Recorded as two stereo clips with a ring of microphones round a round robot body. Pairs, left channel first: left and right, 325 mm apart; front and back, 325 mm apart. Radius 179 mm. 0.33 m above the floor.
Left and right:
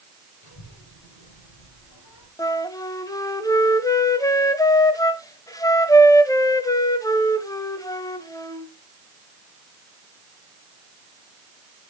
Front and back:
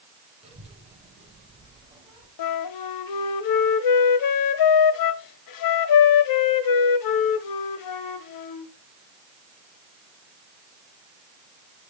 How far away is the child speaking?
About 9 m.